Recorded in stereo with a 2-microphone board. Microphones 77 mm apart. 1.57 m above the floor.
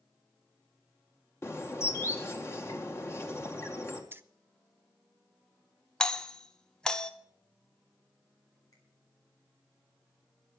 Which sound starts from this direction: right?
Keys jangling, at 4.1 s.